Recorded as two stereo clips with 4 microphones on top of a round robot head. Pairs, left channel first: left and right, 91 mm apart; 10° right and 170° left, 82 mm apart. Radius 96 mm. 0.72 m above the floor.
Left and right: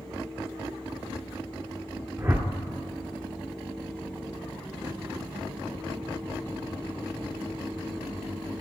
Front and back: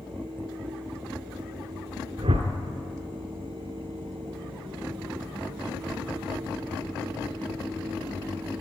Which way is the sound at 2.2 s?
150° right.